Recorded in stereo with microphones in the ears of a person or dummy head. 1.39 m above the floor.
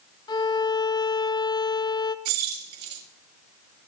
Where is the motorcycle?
I don't hear a motorcycle.